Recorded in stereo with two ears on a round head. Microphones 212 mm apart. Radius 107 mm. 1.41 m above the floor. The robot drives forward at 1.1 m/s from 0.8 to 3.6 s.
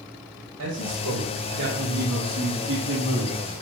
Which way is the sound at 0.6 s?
65° right (ahead or behind).